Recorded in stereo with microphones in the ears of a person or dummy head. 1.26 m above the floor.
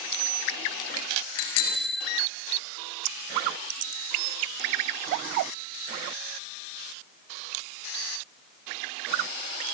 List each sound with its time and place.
1.4 s a bicycle bell: 85° left, 4.5 m